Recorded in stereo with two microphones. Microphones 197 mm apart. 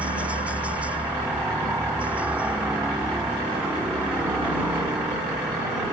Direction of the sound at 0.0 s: 5° right (ahead or behind).